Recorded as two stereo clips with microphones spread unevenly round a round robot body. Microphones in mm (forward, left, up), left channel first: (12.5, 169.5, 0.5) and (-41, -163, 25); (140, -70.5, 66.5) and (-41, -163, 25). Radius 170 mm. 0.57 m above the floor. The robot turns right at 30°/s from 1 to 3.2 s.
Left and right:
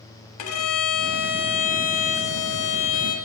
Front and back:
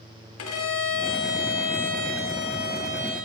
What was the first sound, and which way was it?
A violin, 40° left.